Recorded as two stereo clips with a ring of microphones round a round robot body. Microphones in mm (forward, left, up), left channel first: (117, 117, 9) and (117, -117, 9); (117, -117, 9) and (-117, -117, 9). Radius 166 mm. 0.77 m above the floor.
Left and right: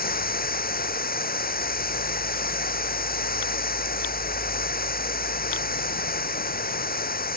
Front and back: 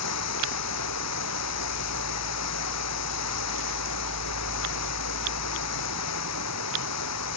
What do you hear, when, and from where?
0.0 s running water: 40° left